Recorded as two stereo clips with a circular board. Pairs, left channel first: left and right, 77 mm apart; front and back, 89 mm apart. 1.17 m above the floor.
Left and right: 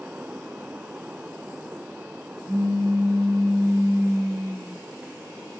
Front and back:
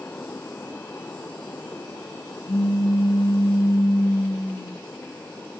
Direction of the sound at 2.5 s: 40° right.